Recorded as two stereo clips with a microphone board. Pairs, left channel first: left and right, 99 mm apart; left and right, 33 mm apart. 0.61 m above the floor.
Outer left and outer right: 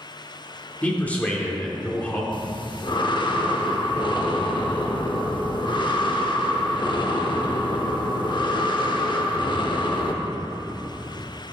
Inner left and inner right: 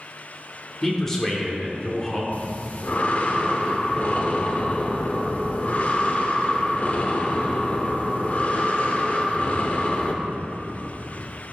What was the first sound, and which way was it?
A man speaking, 15° left (ahead or behind).